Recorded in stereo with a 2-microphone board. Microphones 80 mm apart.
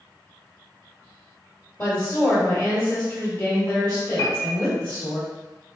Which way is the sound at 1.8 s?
25° left (ahead or behind).